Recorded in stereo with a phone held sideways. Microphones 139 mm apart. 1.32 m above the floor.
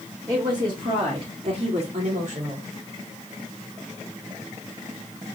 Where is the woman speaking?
25° right (ahead or behind), 2 m; by 2.7 s 60° right (ahead or behind), 2 m.